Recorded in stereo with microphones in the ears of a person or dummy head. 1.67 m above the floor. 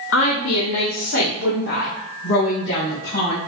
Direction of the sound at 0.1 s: 75° left (ahead or behind).